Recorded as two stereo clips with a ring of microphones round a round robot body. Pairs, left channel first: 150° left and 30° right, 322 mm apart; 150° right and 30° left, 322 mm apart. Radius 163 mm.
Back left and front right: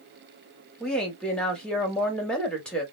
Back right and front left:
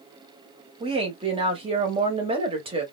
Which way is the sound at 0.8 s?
70° left.